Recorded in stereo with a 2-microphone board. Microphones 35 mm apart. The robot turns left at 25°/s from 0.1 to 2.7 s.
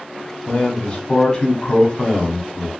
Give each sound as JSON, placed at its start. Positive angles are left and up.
{"t": 0.5, "sound": "a man speaking", "azimuth_deg": 110, "distance_m": 1.2}